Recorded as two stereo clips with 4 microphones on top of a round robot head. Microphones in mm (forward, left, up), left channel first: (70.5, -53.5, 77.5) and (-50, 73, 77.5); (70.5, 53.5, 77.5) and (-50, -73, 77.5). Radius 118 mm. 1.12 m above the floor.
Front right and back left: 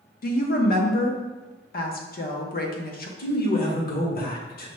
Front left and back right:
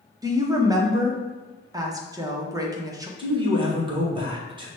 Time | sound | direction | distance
0.2 | a woman speaking | 65° right | 0.9 m
3.2 | a man speaking | 75° right | 1.2 m